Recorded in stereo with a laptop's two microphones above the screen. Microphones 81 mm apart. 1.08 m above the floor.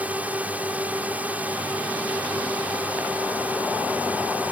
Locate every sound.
0.0 s a drone: 20° right (ahead or behind)